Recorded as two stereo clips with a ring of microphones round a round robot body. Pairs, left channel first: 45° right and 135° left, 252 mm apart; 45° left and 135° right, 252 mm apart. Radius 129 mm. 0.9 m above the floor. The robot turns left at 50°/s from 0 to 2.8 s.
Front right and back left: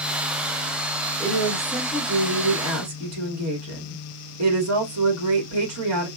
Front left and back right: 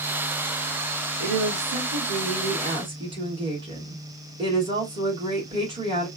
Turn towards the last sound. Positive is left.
turn(degrees=155)